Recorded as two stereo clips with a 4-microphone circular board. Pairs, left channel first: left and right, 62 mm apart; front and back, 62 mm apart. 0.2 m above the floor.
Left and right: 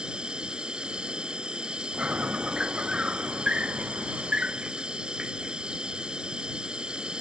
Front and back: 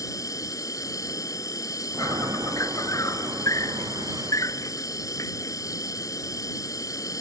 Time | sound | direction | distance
0.0 | an insect | 15° right | ?
1.9 | a chime | 155° right | ?